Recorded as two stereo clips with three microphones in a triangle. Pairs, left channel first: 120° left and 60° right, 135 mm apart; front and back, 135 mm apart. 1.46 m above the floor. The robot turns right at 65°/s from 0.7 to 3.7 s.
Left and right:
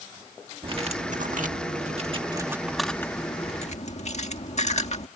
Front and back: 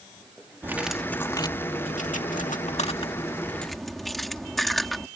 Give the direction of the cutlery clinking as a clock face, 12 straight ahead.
4 o'clock.